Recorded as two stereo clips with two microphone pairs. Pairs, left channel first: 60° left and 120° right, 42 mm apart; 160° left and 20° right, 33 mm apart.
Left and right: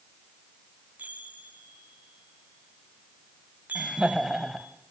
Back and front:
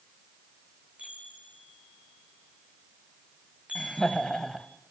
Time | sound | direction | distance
1.0 | a chime | 75° right | 2.5 m
3.8 | laughter | straight behind | 1.0 m